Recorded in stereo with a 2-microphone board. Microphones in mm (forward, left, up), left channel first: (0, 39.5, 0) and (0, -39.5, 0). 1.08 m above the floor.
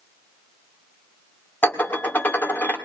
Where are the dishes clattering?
25° left (ahead or behind), 1.9 m.